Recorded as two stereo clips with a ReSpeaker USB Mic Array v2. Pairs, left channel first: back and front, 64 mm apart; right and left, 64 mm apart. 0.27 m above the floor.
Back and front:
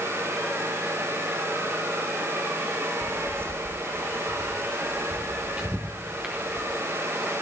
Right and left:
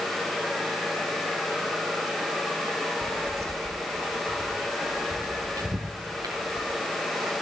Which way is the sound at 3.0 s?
40° left.